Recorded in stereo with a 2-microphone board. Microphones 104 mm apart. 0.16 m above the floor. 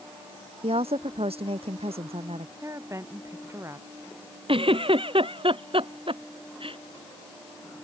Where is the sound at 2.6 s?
30° right (ahead or behind).